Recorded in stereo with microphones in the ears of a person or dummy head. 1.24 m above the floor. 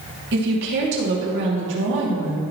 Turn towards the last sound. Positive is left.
turn(degrees=-70)  # may be behind; listen again after turning